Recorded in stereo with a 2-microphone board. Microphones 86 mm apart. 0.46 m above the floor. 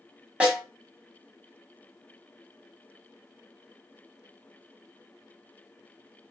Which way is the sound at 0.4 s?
15° right (ahead or behind).